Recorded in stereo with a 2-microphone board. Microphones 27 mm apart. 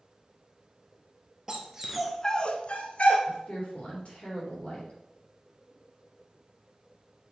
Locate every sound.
1.5 s a dog barking: 25° right (ahead or behind), 1.2 m; by 3.2 s 55° left (ahead or behind), 1.2 m
3.3 s a woman speaking: 55° left (ahead or behind), 3.5 m